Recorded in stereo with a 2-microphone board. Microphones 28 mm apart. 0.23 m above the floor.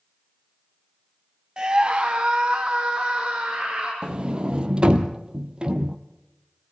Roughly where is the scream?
Right.